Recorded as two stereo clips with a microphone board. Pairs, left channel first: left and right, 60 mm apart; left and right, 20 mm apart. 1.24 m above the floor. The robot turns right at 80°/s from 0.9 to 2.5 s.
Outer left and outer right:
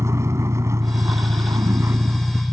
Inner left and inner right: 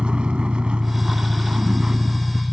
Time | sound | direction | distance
0.0 | a vehicle | 125° right | ?